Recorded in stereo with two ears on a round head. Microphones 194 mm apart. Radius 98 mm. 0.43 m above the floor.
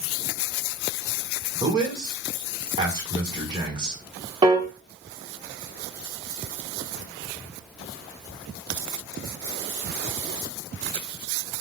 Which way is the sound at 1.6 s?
20° right (ahead or behind).